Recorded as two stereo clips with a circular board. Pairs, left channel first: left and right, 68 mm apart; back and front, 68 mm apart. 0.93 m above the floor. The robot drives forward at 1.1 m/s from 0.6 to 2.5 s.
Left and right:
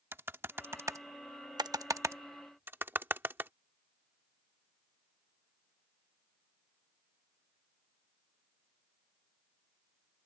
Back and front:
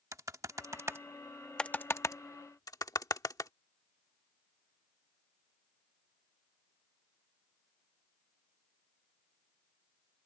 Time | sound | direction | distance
0.1 | typing on a keyboard | 35° right | ?